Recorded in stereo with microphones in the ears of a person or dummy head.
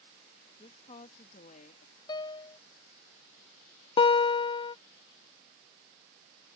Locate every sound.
0.6 s a woman speaking: 35° left (ahead or behind); by 1.9 s 55° left (ahead or behind)
2.1 s a piano: 30° left (ahead or behind)
4.0 s a guitar: 30° left (ahead or behind)